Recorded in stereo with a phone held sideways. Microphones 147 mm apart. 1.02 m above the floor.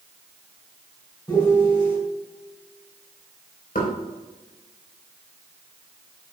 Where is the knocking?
75° left (ahead or behind), 3.5 m.